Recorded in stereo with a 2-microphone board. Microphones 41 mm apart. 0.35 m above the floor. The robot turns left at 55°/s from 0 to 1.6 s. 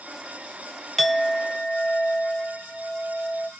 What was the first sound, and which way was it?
A clink, centre (ahead or behind).